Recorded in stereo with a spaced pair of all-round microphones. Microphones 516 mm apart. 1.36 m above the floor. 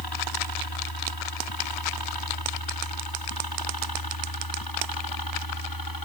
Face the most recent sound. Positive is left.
turn(degrees=40)  # may be behind; listen again after turning